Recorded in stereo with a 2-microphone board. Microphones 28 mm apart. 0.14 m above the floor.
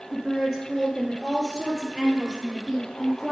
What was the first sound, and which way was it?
A woman speaking, 5° right (ahead or behind).